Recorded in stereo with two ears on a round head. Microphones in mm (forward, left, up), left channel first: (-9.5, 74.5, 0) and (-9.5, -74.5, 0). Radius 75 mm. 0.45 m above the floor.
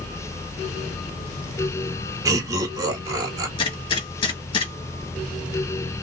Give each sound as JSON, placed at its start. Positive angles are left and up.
{"t": 2.2, "sound": "laughter", "side_deg": -20, "distance_m": 1.1}
{"t": 3.6, "sound": "a gunshot", "side_deg": 30, "distance_m": 1.9}